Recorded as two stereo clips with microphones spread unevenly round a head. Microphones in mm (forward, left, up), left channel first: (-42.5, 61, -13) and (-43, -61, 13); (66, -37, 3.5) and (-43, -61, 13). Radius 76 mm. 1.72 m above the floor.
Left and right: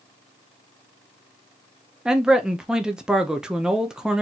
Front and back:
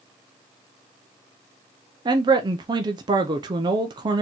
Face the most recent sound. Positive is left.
turn(degrees=-160)